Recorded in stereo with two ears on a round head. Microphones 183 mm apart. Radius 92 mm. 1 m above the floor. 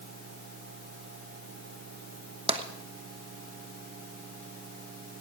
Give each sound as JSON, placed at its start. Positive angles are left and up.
{"t": 2.5, "sound": "tapping", "side_deg": -30, "distance_m": 1.1}